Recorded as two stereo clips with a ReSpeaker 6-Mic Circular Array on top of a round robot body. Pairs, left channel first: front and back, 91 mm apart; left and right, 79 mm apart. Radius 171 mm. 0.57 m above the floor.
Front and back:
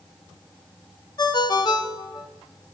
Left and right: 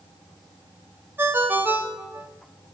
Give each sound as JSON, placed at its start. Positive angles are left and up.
{"t": 1.2, "sound": "a ringtone", "azimuth_deg": -30, "distance_m": 0.8}